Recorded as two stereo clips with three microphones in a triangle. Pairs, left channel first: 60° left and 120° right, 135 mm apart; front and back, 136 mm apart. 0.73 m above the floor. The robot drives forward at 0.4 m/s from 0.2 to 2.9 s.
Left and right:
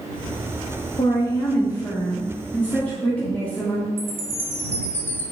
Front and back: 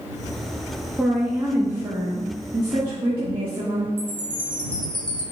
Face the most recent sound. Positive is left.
turn(degrees=-50)